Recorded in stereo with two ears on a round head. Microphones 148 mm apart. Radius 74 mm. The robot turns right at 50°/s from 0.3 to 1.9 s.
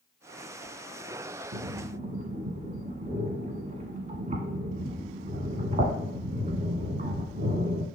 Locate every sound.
1.5 s breathing: 60° right (ahead or behind), 1.1 m; by 7.9 s 45° right (ahead or behind), 1.1 m